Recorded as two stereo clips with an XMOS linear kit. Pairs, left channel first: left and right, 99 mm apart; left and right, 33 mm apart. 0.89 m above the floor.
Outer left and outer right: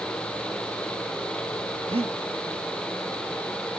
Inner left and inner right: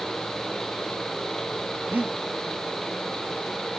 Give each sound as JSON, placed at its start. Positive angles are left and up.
{"t": 1.9, "sound": "breathing", "side_deg": -70, "distance_m": 0.8}